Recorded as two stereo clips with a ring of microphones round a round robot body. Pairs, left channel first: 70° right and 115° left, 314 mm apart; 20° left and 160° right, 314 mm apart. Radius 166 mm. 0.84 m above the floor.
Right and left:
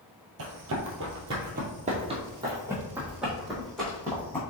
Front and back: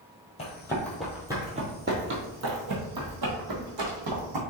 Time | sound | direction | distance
0.4 | running footsteps | 85° left | 1.1 m